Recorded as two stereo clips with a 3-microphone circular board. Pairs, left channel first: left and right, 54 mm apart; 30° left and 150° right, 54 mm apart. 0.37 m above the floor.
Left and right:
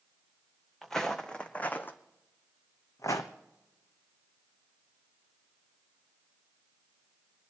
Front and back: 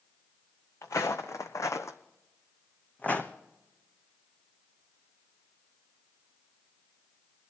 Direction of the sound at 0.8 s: 5° left.